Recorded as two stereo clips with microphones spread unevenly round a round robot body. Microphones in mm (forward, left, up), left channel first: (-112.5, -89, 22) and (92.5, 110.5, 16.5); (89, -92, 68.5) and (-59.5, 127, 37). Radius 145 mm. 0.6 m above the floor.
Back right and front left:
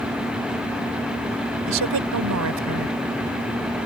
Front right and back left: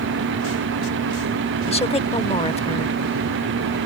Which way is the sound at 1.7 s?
15° left.